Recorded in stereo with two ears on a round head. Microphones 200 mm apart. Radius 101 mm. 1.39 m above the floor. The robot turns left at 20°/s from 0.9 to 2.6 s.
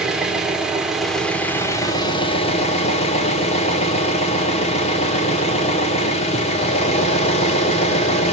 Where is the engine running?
175° right, 0.9 m; by 8.3 s 150° left, 0.9 m.